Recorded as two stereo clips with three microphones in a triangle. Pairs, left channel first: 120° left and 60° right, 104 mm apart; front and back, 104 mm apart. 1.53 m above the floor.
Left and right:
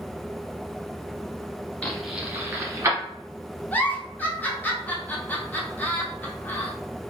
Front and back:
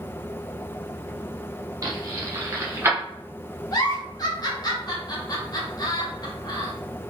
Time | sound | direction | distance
1.8 | keys jangling | 170° right | 0.6 m
3.7 | a giggle | 45° left | 0.6 m